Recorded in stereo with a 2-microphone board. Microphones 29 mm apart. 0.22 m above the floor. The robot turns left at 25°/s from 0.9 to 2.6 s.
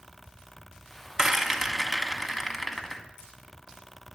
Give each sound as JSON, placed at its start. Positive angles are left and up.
{"t": 1.2, "sound": "a rattle", "side_deg": -20, "distance_m": 1.2}